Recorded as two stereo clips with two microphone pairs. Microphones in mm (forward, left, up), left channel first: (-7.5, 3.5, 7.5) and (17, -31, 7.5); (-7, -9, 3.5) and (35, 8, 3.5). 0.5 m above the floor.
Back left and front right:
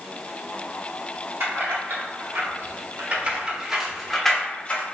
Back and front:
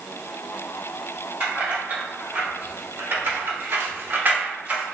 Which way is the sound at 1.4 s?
35° right.